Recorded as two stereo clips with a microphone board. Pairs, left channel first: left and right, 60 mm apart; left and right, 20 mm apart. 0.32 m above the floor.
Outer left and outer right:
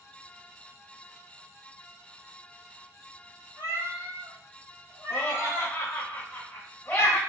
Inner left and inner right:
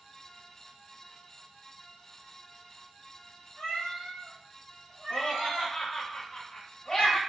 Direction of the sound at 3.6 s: 80° left.